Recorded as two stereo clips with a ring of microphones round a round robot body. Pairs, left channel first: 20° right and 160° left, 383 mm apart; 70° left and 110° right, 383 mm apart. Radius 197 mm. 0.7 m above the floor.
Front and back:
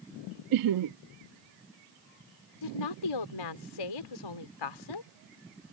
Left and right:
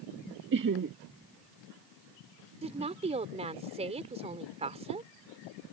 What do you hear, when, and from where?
0.5 s laughter: 170° right
2.6 s a woman speaking: 40° right